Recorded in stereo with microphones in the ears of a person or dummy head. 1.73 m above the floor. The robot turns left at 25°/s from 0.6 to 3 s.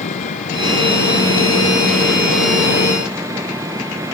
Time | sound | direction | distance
0.0 | an engine running | 45° left | ?